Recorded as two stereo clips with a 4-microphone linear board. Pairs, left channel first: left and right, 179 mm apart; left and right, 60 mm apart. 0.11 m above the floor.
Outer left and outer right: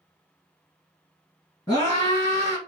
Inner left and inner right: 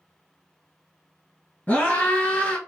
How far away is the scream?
About 1.9 m.